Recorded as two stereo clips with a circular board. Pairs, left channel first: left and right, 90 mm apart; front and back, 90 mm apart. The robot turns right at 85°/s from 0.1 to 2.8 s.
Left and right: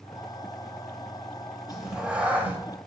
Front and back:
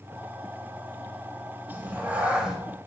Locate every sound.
1.7 s a cat meowing: straight behind, 0.6 m; by 2.6 s 105° right, 0.6 m